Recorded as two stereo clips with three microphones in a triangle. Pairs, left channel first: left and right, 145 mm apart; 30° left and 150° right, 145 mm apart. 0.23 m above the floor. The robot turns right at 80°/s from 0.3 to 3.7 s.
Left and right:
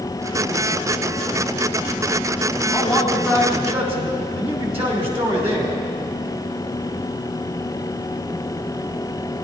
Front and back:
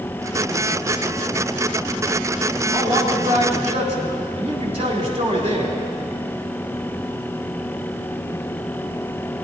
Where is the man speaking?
160° left, 2 m; by 5.8 s 120° right, 2 m.